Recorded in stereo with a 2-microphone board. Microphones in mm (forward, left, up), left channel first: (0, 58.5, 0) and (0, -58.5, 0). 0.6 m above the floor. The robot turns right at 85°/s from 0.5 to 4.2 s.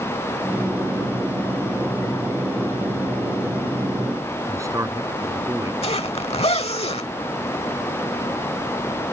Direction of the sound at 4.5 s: 25° right (ahead or behind).